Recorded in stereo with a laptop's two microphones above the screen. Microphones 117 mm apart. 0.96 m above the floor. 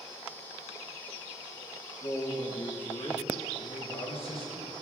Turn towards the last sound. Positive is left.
turn(degrees=55)  # may be behind; listen again after turning